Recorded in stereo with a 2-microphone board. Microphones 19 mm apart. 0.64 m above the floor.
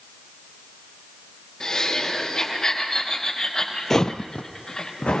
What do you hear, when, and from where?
1.6 s laughter: 50° left (ahead or behind), 3.5 m
3.9 s footsteps: 20° left (ahead or behind), 0.6 m; by 5.2 s 75° left (ahead or behind), 2.5 m